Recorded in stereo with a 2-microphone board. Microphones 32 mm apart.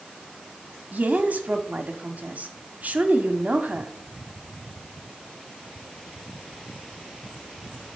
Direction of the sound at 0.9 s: 55° right (ahead or behind).